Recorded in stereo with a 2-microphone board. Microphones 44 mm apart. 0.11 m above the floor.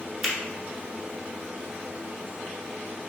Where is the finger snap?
Centre (ahead or behind), 1.1 m.